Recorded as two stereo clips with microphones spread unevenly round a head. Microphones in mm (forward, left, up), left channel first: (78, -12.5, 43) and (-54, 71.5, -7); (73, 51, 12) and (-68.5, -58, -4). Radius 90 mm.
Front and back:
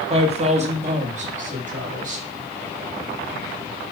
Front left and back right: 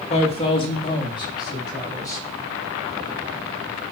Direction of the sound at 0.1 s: 95° left.